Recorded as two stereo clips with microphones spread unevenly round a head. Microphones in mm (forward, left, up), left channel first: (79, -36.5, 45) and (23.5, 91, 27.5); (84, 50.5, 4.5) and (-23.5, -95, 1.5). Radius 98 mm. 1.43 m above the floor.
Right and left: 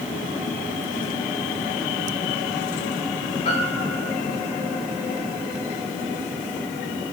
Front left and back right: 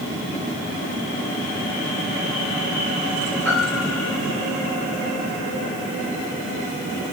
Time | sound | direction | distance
3.5 | a piano | 25° right | 5 m